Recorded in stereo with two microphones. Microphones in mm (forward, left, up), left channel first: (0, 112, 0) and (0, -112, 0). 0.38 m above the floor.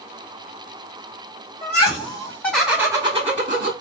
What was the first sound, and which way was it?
Laughter, 30° left (ahead or behind).